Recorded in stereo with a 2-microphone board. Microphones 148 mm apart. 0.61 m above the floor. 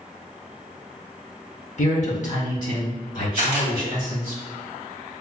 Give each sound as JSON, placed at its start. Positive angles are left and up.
{"t": 1.8, "sound": "a man speaking", "side_deg": 50, "distance_m": 1.1}
{"t": 3.4, "sound": "a camera shutter", "side_deg": 55, "distance_m": 1.5}